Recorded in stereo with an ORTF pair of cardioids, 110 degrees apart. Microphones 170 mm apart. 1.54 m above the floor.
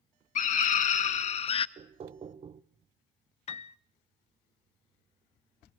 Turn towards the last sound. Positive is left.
turn(degrees=40)